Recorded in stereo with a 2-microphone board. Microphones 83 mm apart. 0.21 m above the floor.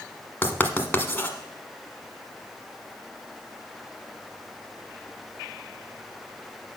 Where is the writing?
25° left (ahead or behind), 1.2 m.